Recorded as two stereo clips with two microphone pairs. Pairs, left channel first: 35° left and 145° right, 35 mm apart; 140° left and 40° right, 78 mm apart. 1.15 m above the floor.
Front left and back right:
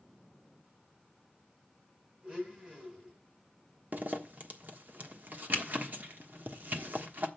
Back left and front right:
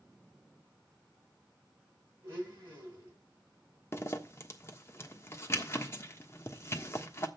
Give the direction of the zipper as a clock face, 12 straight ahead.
6 o'clock.